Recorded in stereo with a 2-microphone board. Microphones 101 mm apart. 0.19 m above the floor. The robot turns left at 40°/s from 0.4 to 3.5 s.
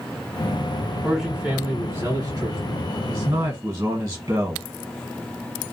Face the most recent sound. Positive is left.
turn(degrees=-35)  # may be behind; listen again after turning